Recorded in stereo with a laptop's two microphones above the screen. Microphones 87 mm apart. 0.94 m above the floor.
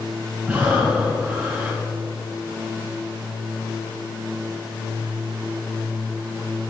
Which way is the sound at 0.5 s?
20° right (ahead or behind).